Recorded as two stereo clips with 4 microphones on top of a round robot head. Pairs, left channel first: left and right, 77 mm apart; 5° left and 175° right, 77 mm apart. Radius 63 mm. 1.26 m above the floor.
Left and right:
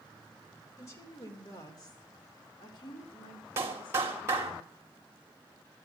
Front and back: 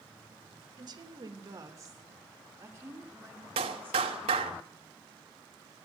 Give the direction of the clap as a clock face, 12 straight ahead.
5 o'clock.